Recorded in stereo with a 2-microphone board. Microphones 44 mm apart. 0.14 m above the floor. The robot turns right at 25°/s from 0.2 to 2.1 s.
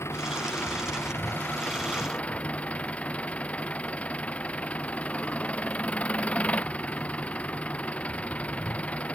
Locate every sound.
0.0 s an engine running: 100° left; by 9.2 s 145° left